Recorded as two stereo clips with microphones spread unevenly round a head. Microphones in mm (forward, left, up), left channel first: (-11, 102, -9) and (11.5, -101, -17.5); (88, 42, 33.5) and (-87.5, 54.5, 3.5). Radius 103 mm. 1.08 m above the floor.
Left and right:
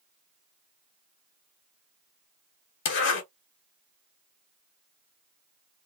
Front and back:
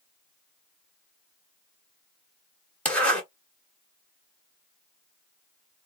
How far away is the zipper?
About 1.7 m.